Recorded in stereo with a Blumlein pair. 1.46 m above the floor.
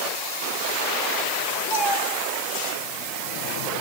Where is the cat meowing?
50° left, 3 m.